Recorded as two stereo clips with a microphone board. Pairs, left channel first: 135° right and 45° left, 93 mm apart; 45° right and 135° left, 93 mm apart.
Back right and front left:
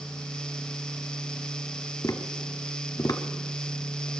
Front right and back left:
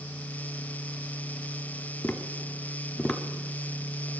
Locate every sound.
2.0 s tapping: 120° right, 0.9 m